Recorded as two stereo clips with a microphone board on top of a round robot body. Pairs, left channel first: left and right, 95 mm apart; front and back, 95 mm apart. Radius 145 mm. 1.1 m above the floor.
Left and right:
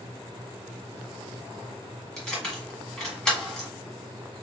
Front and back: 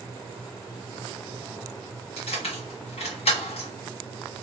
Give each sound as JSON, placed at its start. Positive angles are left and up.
{"t": 2.2, "sound": "keys jangling", "azimuth_deg": 10, "distance_m": 1.5}